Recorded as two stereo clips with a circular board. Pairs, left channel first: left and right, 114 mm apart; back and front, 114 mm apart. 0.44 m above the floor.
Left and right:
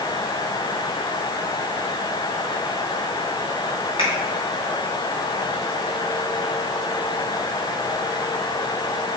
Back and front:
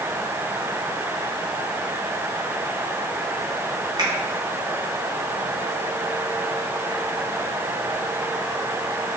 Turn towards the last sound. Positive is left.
turn(degrees=50)